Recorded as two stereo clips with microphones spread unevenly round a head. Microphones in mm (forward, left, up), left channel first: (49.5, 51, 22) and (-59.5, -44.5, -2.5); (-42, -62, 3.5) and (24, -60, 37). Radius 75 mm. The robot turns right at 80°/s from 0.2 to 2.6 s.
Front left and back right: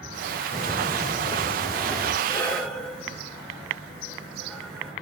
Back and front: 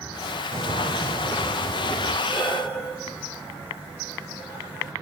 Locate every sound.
0.5 s footsteps: 5° left, 4.5 m; by 2.1 s 145° left, 3.5 m
2.2 s breathing: 100° left, 5.5 m; by 4.9 s 130° left, 5.5 m